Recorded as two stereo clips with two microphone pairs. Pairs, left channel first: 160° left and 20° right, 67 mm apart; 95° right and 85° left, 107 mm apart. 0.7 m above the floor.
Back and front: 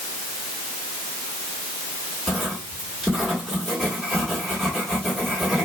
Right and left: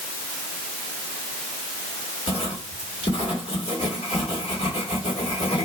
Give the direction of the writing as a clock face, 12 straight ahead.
4 o'clock.